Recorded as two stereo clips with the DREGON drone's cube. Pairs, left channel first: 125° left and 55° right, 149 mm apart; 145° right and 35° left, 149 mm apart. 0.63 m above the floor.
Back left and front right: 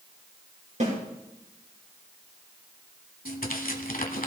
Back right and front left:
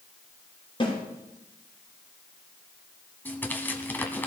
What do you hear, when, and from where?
0.8 s a snare drum: 90° right, 8 m
3.2 s tearing paper: 135° left, 1.6 m